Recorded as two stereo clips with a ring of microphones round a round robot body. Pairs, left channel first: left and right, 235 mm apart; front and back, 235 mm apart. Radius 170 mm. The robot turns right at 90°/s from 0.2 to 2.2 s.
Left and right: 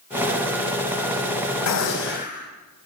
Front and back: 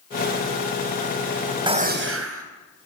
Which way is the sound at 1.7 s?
110° left.